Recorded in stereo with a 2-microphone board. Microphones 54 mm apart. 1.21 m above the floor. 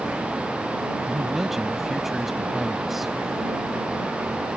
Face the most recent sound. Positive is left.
turn(degrees=-5)  # may be behind; listen again after turning